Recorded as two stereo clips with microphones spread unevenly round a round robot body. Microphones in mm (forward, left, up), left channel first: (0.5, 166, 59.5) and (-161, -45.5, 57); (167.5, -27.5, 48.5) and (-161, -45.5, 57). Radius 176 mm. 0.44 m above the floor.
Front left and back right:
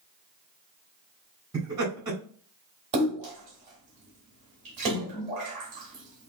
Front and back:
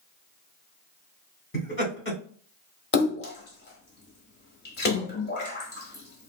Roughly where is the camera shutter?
I don't hear a camera shutter.